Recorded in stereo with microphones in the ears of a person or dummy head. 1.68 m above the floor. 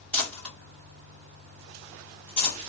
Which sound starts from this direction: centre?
Crumpling, at 0.1 s.